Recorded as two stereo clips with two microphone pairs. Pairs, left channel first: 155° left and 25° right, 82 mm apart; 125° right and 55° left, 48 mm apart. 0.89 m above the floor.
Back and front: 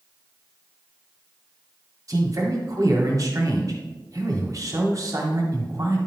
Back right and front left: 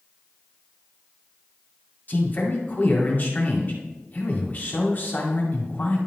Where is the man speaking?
70° right, 2 m.